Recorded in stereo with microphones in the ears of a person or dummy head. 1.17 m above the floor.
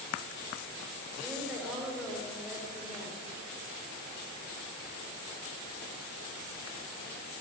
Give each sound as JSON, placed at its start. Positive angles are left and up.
{"t": 1.2, "sound": "a woman speaking", "side_deg": 0, "distance_m": 4.5}